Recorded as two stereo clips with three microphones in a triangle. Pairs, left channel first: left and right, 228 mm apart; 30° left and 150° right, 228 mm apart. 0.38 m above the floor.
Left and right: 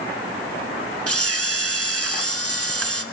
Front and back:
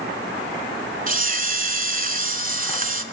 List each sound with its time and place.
1.1 s a camera shutter: 95° right, 0.9 m